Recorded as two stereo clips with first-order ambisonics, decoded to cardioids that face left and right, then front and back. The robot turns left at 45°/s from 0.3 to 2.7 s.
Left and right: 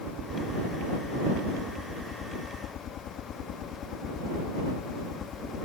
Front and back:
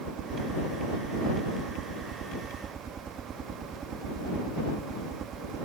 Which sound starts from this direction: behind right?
A helicopter, at 0.0 s.